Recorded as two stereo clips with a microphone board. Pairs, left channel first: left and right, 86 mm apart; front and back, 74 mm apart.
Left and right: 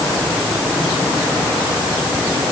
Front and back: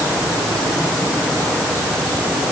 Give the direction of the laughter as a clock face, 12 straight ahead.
I don't hear laughter.